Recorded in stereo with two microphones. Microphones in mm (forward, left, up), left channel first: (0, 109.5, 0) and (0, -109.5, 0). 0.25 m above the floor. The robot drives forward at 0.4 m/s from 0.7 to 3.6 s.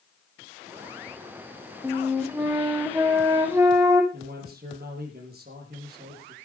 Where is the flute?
10° right (ahead or behind), 3 m; by 4.0 s 15° right (ahead or behind), 2.5 m.